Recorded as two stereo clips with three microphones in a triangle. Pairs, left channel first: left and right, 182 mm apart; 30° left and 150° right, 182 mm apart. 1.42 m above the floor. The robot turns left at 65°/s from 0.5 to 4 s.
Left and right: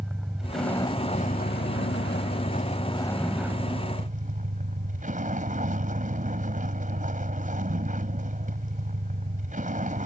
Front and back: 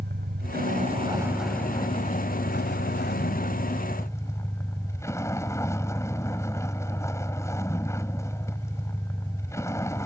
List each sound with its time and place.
0.0 s a vehicle: 175° right; by 10.1 s 45° right